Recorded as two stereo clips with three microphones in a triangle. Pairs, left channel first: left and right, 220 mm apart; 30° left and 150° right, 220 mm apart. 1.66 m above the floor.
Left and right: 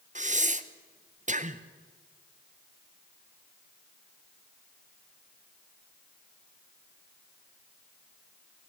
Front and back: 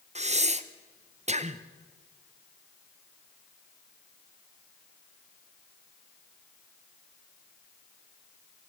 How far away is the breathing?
About 0.8 m.